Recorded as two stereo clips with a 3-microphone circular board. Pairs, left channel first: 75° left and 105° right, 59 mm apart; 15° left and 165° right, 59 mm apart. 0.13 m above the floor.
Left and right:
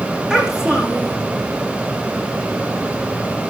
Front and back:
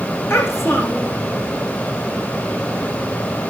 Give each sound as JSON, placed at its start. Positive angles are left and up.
{"t": 0.3, "sound": "a child speaking", "azimuth_deg": -30, "distance_m": 5.0}